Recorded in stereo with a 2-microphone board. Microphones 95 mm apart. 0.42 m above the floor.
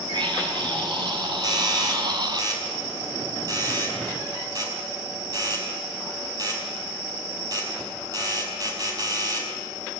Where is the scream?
55° right (ahead or behind), 6 m; by 2.4 s 50° right (ahead or behind), 3 m.